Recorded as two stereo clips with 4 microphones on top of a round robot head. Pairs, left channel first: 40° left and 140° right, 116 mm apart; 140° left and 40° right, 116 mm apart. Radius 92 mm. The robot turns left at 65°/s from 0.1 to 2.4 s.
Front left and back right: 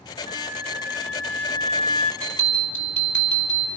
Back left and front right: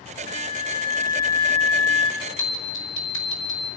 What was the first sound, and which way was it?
A flute, 165° right.